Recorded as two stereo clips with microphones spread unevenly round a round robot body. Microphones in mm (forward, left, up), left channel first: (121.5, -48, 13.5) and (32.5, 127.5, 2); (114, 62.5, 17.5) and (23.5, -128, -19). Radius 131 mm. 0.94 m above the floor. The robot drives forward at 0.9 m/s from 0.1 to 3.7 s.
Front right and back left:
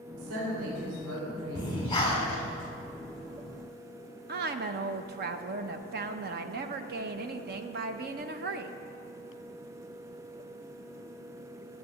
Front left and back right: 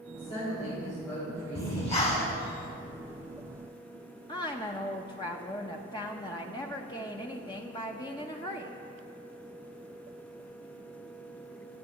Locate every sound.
0.1 s a woman speaking: 135° left, 3 m; by 2.4 s 155° left, 4.5 m
1.6 s breathing: 5° left, 2.5 m
4.3 s a woman speaking: 140° left, 0.6 m